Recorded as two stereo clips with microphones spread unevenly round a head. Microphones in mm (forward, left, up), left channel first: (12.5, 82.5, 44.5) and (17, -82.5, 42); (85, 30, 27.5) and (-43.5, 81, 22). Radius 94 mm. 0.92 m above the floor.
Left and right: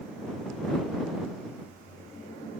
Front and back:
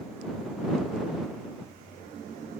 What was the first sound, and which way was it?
Only background noise.